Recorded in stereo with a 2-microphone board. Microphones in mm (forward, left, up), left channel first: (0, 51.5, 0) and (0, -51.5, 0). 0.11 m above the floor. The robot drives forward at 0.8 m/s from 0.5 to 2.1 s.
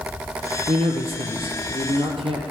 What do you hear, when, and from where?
0.7 s a man speaking: 70° right (ahead or behind), 3.5 m; by 2.4 s 65° right (ahead or behind), 3.5 m